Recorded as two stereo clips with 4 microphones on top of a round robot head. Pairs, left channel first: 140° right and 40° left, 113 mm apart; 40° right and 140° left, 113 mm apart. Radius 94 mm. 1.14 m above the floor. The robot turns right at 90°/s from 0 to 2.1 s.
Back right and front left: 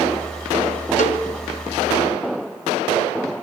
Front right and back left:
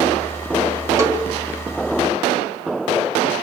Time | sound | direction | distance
1.0 | a cowbell | 155° right | 3 m